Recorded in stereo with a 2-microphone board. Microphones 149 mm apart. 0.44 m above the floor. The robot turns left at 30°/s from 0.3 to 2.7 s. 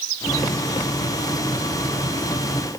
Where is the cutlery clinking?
No cutlery clinking in this recording.